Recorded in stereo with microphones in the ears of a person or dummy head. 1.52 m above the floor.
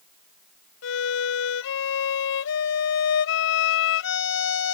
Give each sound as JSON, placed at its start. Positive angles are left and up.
{"t": 0.8, "sound": "a violin", "side_deg": 80}